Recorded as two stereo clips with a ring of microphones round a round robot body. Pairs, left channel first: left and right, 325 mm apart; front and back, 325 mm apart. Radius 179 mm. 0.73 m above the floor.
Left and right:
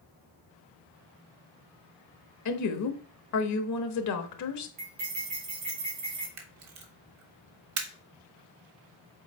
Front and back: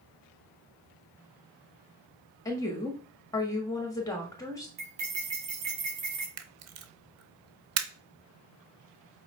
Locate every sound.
2.5 s a woman speaking: 80° left, 1.2 m
4.8 s cutlery clinking: 140° right, 2.5 m
6.4 s a camera shutter: 135° right, 1.1 m